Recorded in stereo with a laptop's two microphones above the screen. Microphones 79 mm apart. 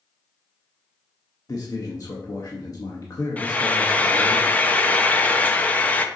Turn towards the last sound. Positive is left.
turn(degrees=20)  # may be behind; listen again after turning